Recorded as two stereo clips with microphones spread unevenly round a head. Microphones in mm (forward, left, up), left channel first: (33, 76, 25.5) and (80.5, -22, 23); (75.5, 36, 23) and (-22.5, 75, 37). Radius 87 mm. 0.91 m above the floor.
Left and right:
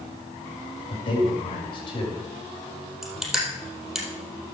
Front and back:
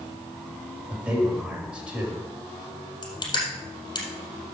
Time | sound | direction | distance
0.9 | a man speaking | 80° left | 4.5 m
3.0 | crushing | 25° left | 4 m